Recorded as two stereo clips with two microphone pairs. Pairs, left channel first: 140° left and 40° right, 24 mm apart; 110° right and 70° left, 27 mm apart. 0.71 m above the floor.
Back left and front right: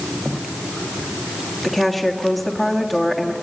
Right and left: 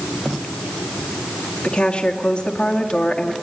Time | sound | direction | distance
1.6 | a woman speaking | 135° right | 1.6 m